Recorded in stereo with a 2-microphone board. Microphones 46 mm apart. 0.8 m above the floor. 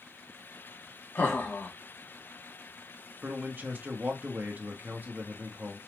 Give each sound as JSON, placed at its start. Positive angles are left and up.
{"t": 1.1, "sound": "laughter", "side_deg": 55, "distance_m": 1.6}
{"t": 3.2, "sound": "a man speaking", "side_deg": -40, "distance_m": 1.2}